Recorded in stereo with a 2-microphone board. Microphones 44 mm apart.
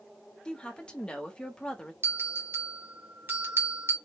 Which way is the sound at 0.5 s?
20° left (ahead or behind).